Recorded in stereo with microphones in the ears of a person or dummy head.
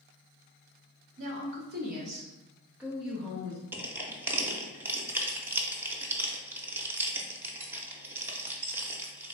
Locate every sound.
1.2 s a woman speaking: 60° right (ahead or behind), 1.0 m; by 3.6 s 15° left (ahead or behind), 1.2 m
3.7 s crushing: 15° right (ahead or behind), 0.6 m